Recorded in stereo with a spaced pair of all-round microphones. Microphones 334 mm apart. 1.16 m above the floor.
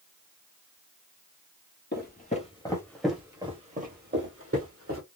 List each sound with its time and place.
1.9 s footsteps: 30° left (ahead or behind), 1.6 m; by 5.0 s 50° right (ahead or behind), 2.0 m